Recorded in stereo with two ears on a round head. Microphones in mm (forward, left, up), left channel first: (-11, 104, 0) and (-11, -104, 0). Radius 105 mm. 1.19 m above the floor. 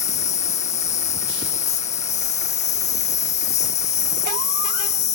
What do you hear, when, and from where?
0.0 s an insect: 30° left (ahead or behind)